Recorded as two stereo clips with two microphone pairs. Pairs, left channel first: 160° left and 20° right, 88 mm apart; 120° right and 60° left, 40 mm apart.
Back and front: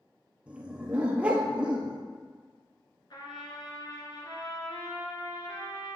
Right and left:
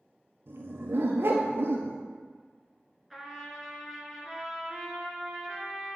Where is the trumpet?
155° left, 1.4 m.